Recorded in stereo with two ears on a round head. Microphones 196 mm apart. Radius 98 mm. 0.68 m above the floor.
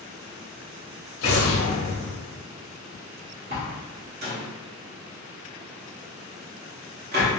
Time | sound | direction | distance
1.2 | an explosion | 90° left | 0.8 m
3.5 | a door slam | 45° right (ahead or behind) | 0.9 m